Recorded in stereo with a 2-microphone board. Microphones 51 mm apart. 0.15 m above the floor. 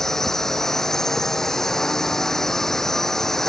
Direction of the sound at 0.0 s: 10° left (ahead or behind).